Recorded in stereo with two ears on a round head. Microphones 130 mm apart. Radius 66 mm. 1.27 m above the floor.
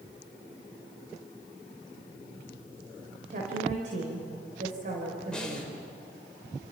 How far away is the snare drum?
About 5 m.